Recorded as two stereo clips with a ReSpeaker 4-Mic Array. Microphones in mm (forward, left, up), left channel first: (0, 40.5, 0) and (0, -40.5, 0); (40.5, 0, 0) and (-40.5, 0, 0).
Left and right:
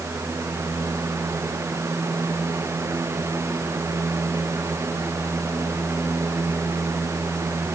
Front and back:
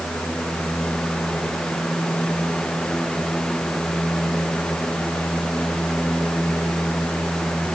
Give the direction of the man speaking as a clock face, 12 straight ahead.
I don't hear a man speaking.